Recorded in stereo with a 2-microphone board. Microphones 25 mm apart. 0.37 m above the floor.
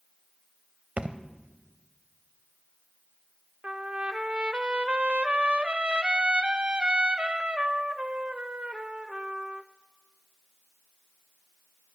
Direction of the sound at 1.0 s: 60° right (ahead or behind).